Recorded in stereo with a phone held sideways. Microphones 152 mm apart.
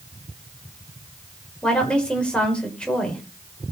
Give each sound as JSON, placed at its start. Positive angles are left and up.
{"t": 1.6, "sound": "a woman speaking", "side_deg": 5, "distance_m": 4.5}